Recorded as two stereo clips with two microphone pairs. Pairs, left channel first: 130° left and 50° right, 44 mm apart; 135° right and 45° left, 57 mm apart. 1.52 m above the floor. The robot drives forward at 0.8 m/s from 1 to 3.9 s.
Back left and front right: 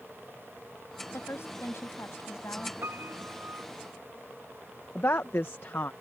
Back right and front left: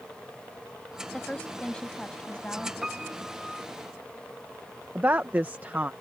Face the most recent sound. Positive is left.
turn(degrees=100)